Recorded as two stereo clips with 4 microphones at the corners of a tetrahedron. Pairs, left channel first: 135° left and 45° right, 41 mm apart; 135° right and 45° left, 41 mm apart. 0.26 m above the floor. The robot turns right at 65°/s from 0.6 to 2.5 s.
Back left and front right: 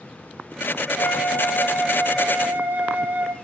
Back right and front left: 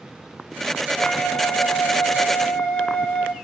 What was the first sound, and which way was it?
A flute, 170° left.